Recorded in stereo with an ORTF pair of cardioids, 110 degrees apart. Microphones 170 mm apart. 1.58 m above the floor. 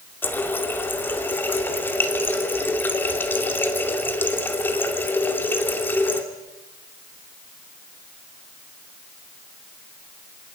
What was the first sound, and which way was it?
A running tap, 10° left.